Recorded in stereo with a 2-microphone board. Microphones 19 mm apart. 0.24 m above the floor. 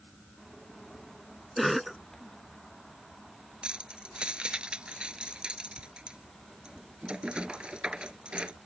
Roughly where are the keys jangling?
Right.